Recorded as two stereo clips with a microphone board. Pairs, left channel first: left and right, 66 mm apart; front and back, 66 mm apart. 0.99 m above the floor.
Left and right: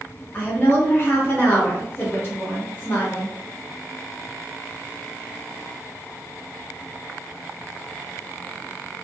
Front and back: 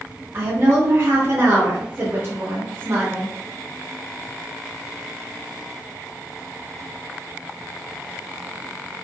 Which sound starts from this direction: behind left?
A woman speaking, at 0.3 s.